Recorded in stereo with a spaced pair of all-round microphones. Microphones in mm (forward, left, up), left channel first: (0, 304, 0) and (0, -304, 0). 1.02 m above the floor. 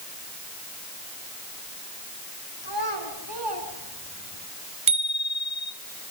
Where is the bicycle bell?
50° right (ahead or behind), 3 m.